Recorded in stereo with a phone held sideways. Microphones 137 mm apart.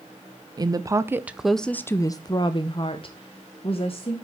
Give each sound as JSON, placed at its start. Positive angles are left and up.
{"t": 0.6, "sound": "a woman speaking", "side_deg": -30, "distance_m": 0.8}